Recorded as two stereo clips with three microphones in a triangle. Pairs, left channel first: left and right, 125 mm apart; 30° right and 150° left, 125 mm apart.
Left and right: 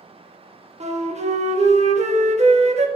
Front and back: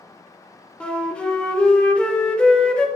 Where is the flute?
115° right, 0.7 m.